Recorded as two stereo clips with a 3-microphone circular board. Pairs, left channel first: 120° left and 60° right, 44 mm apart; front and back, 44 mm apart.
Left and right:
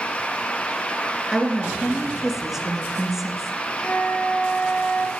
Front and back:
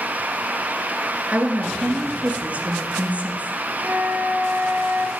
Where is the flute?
150° left, 1.6 m.